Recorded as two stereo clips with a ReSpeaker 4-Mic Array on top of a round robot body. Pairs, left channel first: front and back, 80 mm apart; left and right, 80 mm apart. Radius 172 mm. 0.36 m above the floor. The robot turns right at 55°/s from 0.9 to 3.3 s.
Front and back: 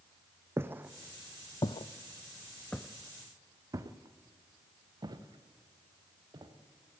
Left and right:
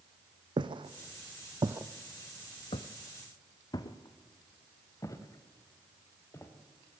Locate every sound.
0.6 s footsteps: 120° right, 1.4 m; by 6.5 s 145° left, 4 m